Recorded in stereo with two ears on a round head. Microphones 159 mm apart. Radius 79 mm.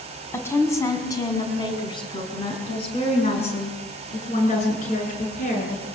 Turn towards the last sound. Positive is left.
turn(degrees=45)  # may be behind; listen again after turning